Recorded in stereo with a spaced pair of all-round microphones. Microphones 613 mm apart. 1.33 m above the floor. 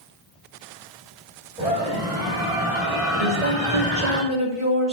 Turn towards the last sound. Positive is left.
turn(degrees=50)  # may be behind; listen again after turning